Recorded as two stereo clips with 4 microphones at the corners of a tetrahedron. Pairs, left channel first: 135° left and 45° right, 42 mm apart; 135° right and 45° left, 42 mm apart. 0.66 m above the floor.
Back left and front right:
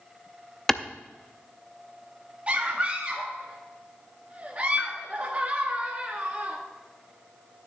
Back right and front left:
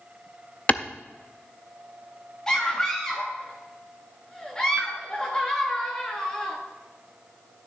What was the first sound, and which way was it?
A clap, 150° right.